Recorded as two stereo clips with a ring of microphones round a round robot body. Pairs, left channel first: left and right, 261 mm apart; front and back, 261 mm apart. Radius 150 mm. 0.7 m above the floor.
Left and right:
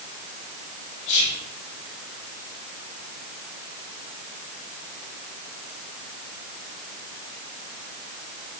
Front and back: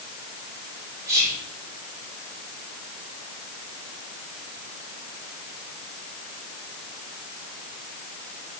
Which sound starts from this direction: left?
Whispering, at 1.1 s.